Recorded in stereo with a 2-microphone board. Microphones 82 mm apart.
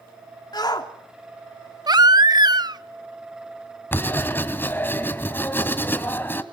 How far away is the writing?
About 1.7 m.